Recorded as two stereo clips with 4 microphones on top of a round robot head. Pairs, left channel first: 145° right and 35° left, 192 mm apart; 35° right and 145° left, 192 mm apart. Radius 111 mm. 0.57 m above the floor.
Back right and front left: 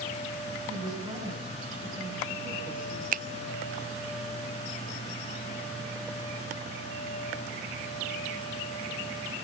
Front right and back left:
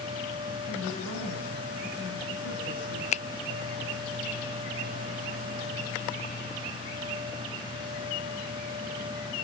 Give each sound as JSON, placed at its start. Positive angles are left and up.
{"t": 0.7, "sound": "a woman speaking", "azimuth_deg": -30, "distance_m": 7.0}
{"t": 3.1, "sound": "a finger snap", "azimuth_deg": 10, "distance_m": 0.5}